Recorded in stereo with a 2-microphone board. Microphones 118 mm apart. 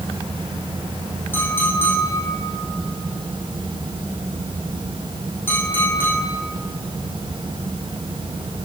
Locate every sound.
1.3 s a clink: 20° left (ahead or behind), 3.5 m